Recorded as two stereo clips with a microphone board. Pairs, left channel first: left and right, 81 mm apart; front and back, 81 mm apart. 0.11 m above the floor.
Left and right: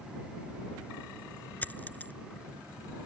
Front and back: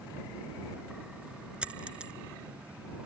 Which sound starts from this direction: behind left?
A dropped coin, at 1.6 s.